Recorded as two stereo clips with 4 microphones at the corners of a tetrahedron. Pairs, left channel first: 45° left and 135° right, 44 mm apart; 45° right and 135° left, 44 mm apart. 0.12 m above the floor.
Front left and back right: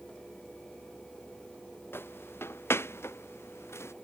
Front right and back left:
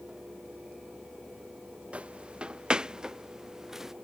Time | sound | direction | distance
1.9 | footsteps | 75° left | ?